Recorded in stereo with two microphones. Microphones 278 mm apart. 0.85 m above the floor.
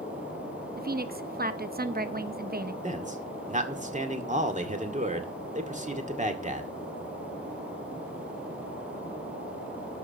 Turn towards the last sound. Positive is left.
turn(degrees=-25)  # may be behind; listen again after turning